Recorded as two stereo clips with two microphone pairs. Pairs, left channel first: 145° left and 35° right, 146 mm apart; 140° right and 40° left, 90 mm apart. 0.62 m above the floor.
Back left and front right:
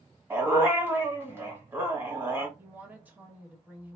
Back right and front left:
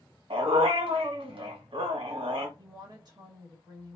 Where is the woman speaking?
40° left, 1.3 m.